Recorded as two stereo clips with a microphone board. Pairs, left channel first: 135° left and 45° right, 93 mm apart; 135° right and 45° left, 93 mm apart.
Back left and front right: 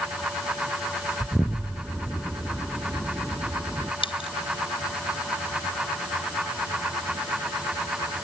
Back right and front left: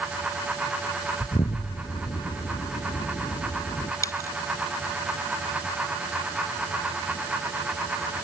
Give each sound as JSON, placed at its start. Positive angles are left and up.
{"t": 1.2, "sound": "an explosion", "azimuth_deg": -115}
{"t": 4.0, "sound": "a dropped coin", "azimuth_deg": 165}